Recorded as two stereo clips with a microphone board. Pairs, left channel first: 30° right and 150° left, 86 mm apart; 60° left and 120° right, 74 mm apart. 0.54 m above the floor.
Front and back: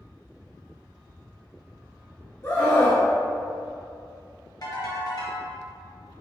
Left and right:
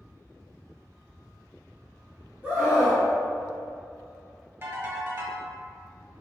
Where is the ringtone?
70° right, 1.9 m.